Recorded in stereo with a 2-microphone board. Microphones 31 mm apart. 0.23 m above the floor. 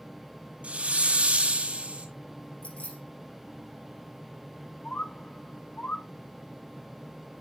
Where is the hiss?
45° right (ahead or behind), 2 m.